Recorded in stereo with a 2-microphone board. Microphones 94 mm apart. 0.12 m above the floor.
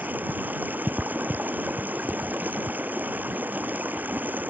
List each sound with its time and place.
0.0 s running water: 20° right (ahead or behind)